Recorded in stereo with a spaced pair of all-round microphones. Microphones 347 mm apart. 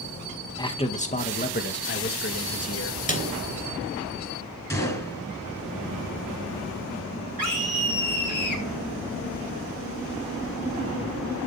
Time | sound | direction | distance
0.6 | a man speaking | 10° left (ahead or behind) | 1.9 m
3.1 | a snare drum | 20° left (ahead or behind) | 3 m
4.7 | a gunshot | 10° left (ahead or behind) | 5.5 m
7.4 | a scream | 70° right (ahead or behind) | 4 m